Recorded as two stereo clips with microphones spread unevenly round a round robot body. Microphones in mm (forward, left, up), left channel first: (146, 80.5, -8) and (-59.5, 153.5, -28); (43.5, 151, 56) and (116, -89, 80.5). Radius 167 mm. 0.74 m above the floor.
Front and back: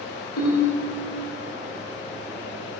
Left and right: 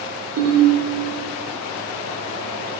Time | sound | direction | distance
0.4 | a ringtone | 45° right | 1.2 m